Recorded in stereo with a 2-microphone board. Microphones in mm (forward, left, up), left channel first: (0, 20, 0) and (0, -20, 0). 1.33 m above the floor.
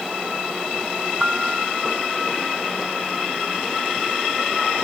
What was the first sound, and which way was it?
A piano, 15° right (ahead or behind).